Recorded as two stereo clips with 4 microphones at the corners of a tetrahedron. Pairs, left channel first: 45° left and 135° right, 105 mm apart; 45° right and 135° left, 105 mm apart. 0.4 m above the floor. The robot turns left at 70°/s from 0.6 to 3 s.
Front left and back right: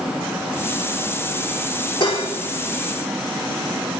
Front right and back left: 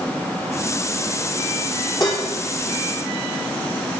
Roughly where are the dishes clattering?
Ahead.